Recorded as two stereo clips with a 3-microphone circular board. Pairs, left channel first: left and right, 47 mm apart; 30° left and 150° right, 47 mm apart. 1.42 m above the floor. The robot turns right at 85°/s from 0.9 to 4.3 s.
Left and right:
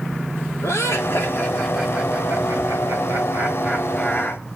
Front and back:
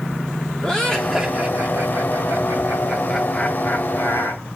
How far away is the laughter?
About 3 m.